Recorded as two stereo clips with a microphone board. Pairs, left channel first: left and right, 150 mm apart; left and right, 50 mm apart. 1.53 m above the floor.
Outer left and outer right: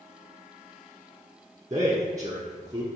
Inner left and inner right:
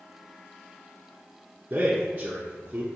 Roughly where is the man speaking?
Right.